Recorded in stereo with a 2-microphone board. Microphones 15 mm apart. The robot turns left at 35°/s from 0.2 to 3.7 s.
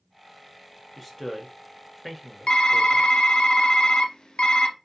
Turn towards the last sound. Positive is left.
turn(degrees=75)